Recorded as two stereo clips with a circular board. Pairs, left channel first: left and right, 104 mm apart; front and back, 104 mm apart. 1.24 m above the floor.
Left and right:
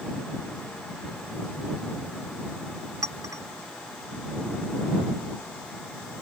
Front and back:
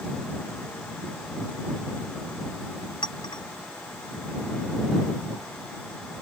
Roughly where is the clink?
Ahead right.